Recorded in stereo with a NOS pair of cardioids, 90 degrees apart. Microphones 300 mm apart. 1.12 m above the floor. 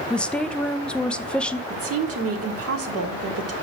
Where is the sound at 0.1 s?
5° left, 0.5 m.